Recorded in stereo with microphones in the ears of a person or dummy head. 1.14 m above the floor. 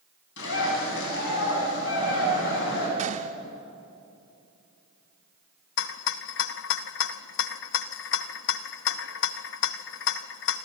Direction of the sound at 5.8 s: 70° left (ahead or behind).